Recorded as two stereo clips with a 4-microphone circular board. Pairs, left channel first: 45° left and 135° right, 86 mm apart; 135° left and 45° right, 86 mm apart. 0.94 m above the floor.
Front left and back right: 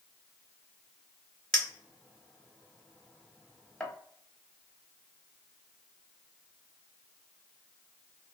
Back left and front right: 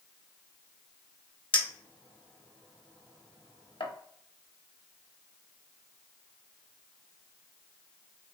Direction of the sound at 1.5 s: 125° left.